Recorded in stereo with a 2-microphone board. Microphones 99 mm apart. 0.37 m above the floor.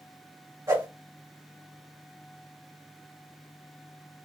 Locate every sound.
0.7 s a whoosh: 35° right (ahead or behind), 1.8 m